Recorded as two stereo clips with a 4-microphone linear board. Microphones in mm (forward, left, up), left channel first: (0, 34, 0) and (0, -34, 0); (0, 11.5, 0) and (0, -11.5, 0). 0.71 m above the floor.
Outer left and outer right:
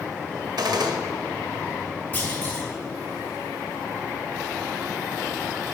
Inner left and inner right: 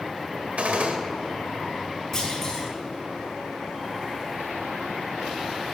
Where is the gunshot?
85° right, 1.3 m.